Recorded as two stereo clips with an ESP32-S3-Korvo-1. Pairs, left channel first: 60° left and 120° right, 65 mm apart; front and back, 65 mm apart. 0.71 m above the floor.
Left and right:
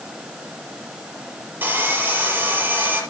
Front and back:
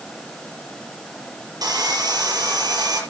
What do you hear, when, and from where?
1.6 s sawing: straight behind, 5 m